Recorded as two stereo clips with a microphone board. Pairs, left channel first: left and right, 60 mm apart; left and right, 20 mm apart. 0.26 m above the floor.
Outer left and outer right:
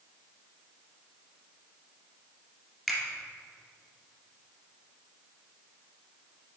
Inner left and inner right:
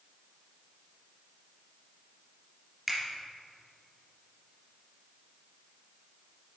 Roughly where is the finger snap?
Centre.